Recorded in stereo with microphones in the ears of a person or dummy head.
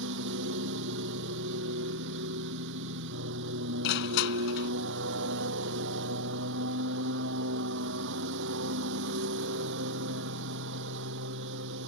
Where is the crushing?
55° left (ahead or behind).